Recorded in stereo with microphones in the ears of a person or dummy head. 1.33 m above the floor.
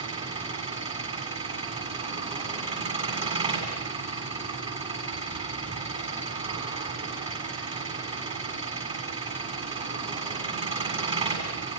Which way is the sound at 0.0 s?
25° right (ahead or behind).